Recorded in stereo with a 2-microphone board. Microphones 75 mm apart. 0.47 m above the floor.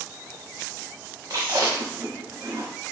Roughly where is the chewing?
Right.